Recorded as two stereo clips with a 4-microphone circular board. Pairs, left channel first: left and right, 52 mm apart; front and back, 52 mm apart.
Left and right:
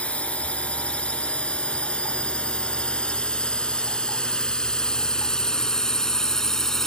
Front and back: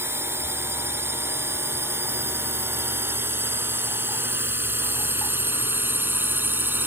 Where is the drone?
155° left; by 6.9 s 165° left.